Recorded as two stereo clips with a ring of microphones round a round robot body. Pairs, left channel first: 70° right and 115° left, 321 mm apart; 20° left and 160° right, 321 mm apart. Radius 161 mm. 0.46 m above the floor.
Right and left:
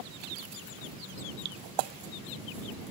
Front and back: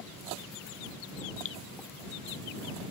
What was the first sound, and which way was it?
Dripping, 75° left.